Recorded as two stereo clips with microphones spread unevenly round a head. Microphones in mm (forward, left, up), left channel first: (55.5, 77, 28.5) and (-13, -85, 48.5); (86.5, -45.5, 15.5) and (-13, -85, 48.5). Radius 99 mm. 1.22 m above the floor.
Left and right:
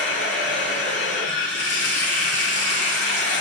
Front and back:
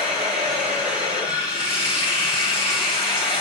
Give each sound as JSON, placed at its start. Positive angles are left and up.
{"t": 0.0, "sound": "running water", "azimuth_deg": 95, "distance_m": 3.0}